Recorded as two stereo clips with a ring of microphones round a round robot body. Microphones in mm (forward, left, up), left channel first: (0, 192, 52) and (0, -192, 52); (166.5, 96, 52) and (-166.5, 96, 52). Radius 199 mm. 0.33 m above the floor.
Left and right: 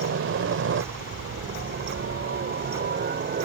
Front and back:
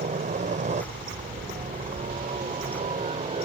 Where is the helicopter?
125° right.